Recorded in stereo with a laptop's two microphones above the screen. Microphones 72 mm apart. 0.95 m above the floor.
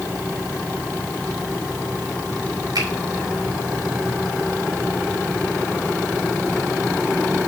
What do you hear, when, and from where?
2.8 s a finger snap: 70° right (ahead or behind), 3 m